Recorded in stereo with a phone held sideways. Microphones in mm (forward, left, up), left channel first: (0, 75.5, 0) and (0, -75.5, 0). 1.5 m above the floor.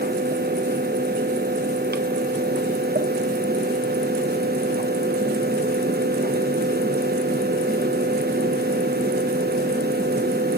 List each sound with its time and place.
0.0 s a fan: 80° right, 1.0 m